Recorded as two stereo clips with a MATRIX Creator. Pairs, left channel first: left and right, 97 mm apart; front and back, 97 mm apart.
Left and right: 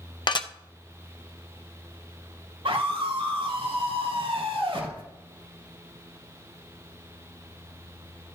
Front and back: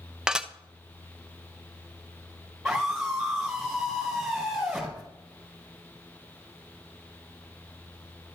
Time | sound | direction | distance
0.3 | dishes clattering | 100° left | 0.5 m
2.6 | a scream | 90° right | 4.5 m